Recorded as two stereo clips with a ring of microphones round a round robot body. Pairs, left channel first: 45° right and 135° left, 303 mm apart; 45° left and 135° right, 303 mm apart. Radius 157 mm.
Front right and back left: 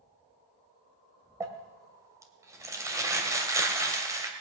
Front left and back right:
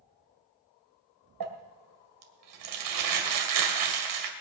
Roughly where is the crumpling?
Behind right.